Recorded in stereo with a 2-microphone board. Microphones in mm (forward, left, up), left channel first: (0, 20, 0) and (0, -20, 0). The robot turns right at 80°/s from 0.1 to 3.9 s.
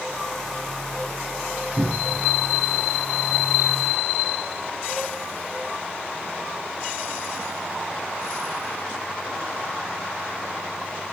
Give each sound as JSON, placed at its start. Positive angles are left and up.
{"t": 1.8, "sound": "a cupboard door", "side_deg": -65, "distance_m": 4.5}